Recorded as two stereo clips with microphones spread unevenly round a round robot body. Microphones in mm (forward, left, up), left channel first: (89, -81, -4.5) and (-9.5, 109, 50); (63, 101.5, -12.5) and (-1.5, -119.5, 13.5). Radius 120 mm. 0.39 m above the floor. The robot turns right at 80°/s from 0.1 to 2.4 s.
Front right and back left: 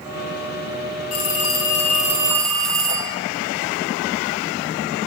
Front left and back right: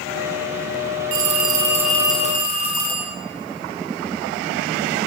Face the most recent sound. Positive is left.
turn(degrees=25)